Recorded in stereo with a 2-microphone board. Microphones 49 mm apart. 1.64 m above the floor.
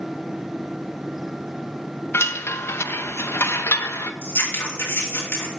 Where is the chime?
55° left (ahead or behind), 0.6 m.